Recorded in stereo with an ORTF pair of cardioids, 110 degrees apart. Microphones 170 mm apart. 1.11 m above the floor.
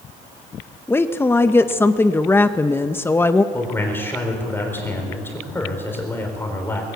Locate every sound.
0.9 s a woman speaking: 15° left, 0.8 m
3.5 s a man speaking: 15° left, 4 m